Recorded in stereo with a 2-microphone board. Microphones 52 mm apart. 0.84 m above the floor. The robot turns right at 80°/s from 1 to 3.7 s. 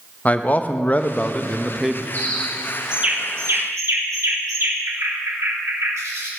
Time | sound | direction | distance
0.2 | a man speaking | 125° left | 0.6 m
2.1 | a bird | 40° left (ahead or behind) | 1.6 m